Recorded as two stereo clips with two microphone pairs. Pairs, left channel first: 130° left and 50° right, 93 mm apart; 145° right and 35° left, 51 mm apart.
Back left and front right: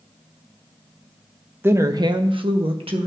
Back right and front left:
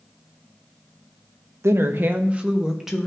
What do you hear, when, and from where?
1.6 s a woman speaking: 20° left, 0.7 m; by 3.1 s 50° right, 1.2 m